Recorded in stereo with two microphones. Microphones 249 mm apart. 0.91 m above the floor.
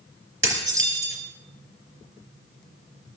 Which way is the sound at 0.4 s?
55° right (ahead or behind).